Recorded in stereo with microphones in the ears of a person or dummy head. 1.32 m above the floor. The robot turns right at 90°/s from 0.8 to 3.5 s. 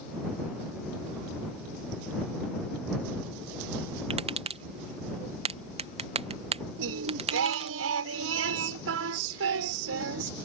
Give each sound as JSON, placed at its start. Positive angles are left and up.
{"t": 4.1, "sound": "tapping", "side_deg": -30}
{"t": 6.8, "sound": "singing", "side_deg": -70}